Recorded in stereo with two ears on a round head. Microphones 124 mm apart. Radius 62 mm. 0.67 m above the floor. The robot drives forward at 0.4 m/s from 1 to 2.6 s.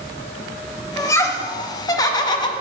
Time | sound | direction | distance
1.0 | laughter | 20° left (ahead or behind) | 1.2 m